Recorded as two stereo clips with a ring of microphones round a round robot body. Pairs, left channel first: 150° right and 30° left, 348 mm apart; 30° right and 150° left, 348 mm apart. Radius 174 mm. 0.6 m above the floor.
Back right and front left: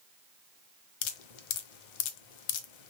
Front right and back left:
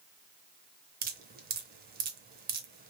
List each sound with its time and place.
1.0 s dripping: 145° right, 0.6 m